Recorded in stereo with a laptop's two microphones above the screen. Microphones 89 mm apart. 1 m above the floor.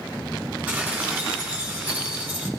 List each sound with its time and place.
0.7 s dishes clattering: 15° right (ahead or behind), 6.5 m